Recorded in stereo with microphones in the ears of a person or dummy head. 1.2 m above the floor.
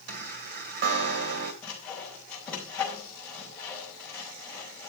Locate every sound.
0.1 s a chime: 50° right (ahead or behind), 1.7 m
1.6 s sawing: 10° left (ahead or behind), 4.5 m